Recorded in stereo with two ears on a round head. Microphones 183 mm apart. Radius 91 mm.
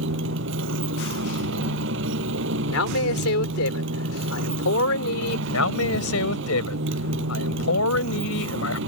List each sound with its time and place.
0.0 s a motorcycle: 65° right (ahead or behind)
2.7 s a man speaking: 80° left
5.5 s a man speaking: 80° left